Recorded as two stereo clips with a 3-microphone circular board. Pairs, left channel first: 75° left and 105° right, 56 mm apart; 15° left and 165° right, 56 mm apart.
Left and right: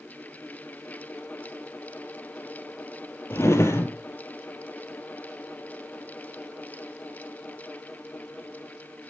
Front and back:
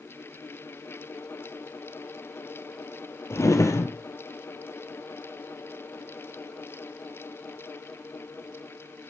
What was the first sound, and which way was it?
A drawer, 40° left.